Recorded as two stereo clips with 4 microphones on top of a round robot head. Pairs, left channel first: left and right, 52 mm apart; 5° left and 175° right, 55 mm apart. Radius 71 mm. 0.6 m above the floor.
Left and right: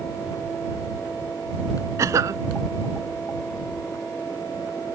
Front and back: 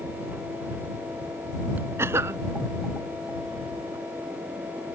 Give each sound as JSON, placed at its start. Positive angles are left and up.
{"t": 2.0, "sound": "a cough", "azimuth_deg": -125}